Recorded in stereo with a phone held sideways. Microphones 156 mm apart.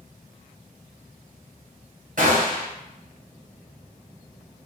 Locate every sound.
2.2 s a gunshot: 60° right (ahead or behind), 0.9 m